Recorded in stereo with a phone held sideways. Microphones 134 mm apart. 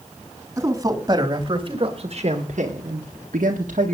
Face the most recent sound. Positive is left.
turn(degrees=-65)  # may be behind; listen again after turning